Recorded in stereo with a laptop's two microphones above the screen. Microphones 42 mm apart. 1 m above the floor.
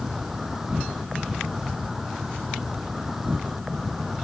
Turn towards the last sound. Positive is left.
turn(degrees=-5)  # may be behind; listen again after turning